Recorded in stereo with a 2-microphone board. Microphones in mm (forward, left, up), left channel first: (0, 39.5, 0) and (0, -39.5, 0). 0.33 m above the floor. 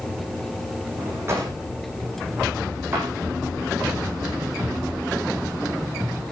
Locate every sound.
1.0 s a drawer: 35° right (ahead or behind), 5.5 m